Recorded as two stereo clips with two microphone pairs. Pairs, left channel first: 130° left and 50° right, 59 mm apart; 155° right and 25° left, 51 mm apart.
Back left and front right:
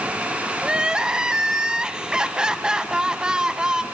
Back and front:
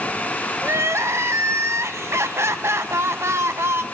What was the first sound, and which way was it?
Crying, 30° left.